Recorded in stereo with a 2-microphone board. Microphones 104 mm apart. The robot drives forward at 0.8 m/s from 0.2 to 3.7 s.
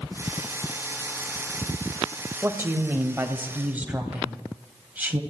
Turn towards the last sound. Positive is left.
turn(degrees=-15)  # may be behind; listen again after turning